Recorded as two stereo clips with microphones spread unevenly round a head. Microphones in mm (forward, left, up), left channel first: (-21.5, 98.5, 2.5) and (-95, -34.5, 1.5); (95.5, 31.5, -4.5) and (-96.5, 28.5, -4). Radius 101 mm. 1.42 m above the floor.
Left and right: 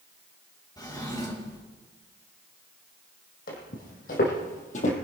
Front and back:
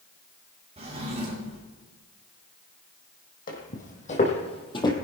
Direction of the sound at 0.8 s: 125° left.